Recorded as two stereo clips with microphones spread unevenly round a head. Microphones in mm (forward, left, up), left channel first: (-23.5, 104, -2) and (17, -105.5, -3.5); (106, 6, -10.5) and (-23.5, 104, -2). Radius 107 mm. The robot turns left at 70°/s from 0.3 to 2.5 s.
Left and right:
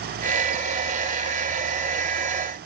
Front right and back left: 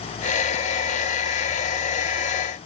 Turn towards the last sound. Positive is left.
No sound to turn to.